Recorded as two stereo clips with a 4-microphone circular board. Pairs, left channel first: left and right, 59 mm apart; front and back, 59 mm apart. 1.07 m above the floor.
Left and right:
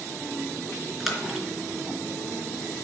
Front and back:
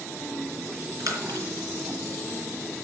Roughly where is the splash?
Behind.